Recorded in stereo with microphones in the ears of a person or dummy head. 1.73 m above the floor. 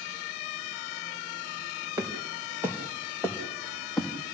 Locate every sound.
2.0 s footsteps: 20° right (ahead or behind), 5 m; by 4.1 s centre (ahead or behind), 3.5 m